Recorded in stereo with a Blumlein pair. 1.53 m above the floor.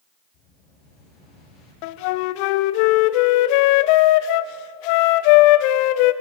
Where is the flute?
45° left, 0.6 m.